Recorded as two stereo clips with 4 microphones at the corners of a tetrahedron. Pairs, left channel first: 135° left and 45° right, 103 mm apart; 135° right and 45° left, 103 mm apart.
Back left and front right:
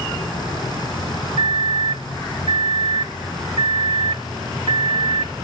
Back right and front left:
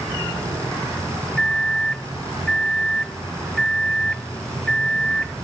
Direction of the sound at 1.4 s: 50° right.